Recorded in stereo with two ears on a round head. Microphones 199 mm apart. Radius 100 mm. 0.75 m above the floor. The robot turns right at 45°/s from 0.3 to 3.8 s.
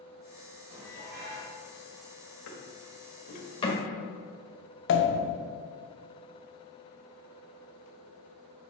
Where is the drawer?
75° left (ahead or behind), 1.3 m; by 3.8 s 15° left (ahead or behind), 1.3 m.